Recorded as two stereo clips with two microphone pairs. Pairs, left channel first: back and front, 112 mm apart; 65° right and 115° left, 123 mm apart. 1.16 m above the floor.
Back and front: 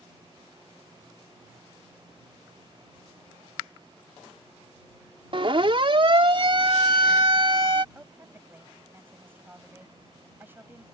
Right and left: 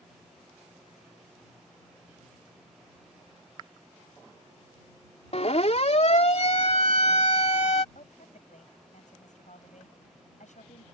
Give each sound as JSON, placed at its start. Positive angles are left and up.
{"t": 5.3, "sound": "a siren", "azimuth_deg": -40}
{"t": 8.0, "sound": "a woman speaking", "azimuth_deg": -75}